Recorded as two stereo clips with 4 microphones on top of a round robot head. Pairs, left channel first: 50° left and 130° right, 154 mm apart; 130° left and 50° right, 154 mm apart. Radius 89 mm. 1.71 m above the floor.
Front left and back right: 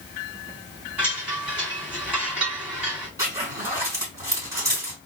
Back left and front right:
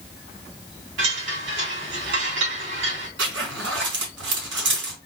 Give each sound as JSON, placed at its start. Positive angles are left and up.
{"t": 1.0, "sound": "a chime", "azimuth_deg": -50, "distance_m": 3.0}
{"t": 3.2, "sound": "a zipper", "azimuth_deg": -55, "distance_m": 3.0}